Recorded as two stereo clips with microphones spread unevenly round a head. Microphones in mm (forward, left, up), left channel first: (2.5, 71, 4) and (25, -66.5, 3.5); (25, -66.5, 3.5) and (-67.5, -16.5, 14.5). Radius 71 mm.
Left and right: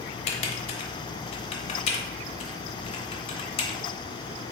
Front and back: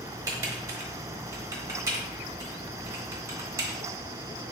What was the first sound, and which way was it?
Typing on a keyboard, 110° left.